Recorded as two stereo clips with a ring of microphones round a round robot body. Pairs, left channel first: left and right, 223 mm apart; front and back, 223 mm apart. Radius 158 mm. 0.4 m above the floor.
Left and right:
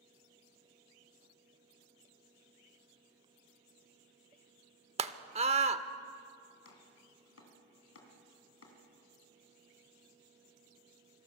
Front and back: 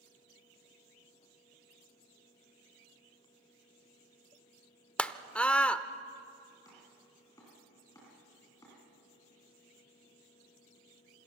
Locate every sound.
5.0 s a scream: 80° right, 0.9 m
6.7 s chopping: 80° left, 3.5 m